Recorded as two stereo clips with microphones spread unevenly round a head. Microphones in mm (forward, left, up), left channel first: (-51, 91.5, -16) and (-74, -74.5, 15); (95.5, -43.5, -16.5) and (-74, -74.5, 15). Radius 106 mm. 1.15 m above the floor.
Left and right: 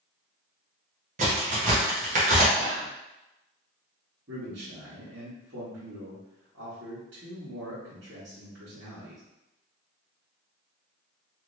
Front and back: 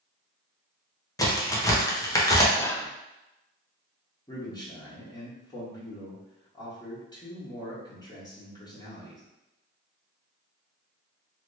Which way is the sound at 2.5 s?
65° right.